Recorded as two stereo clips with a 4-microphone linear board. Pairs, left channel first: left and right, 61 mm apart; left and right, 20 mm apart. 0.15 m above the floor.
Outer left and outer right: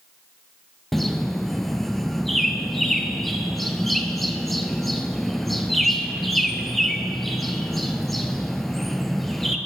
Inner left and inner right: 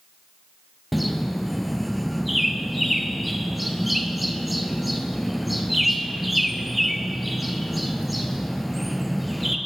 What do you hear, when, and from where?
0.9 s a bird: centre (ahead or behind), 0.7 m